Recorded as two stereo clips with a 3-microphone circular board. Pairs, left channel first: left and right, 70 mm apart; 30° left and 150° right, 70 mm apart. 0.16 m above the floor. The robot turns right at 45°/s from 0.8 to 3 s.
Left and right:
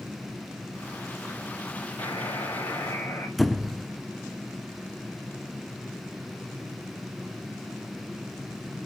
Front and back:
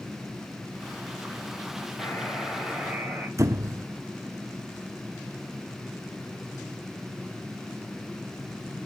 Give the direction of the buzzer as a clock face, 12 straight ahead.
9 o'clock.